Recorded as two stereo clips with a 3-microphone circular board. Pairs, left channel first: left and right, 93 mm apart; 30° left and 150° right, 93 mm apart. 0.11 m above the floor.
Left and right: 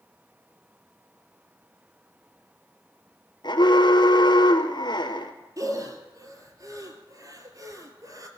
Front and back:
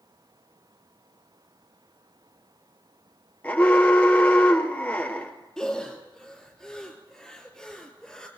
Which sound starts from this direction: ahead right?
Breathing, at 5.6 s.